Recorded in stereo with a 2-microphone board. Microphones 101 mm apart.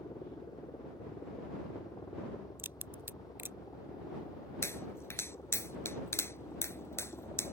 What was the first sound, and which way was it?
A helicopter, 40° left (ahead or behind).